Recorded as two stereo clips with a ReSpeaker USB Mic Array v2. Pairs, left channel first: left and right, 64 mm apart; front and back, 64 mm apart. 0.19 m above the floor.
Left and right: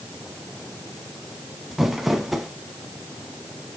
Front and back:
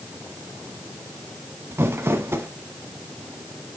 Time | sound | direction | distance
1.7 | crumpling | 175° right | 0.9 m